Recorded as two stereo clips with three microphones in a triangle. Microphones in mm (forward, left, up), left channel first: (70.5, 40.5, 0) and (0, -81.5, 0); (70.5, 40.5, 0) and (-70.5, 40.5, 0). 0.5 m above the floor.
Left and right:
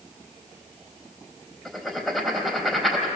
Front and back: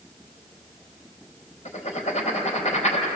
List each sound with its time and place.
1.6 s writing: 30° right, 3.5 m